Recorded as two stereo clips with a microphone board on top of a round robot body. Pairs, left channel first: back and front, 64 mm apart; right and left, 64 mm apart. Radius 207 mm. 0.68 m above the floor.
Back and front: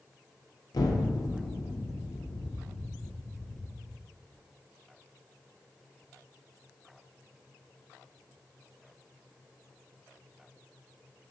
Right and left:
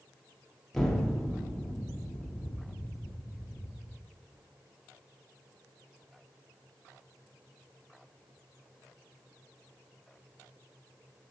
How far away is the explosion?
About 1.1 m.